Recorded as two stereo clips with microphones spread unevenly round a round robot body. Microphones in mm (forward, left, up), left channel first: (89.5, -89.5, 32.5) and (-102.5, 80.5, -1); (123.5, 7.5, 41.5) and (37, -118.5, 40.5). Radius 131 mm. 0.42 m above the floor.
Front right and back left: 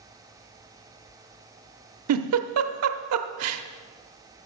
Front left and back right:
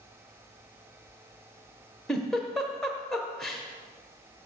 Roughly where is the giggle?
Behind left.